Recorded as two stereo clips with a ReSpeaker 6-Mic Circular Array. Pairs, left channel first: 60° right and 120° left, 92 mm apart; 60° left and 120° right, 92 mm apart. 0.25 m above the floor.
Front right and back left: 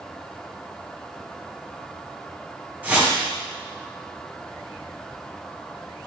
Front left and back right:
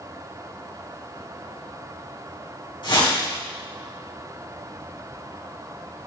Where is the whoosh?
50° left, 2 m.